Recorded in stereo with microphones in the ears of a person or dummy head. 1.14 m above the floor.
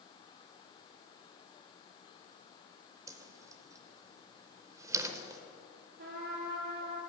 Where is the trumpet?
45° right (ahead or behind), 2 m.